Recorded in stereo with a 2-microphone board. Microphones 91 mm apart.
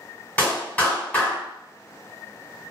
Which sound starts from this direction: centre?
A clap, at 0.4 s.